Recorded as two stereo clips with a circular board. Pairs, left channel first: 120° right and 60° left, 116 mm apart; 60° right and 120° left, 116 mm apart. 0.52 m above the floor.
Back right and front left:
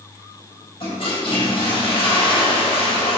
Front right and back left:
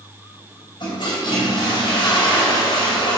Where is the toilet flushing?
95° right, 3 m.